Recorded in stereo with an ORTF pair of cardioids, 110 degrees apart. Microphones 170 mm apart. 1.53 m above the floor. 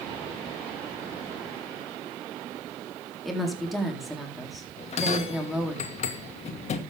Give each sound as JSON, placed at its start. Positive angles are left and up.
{"t": 3.2, "sound": "a woman speaking", "azimuth_deg": 0, "distance_m": 4.0}
{"t": 4.8, "sound": "a bell", "azimuth_deg": 45, "distance_m": 2.0}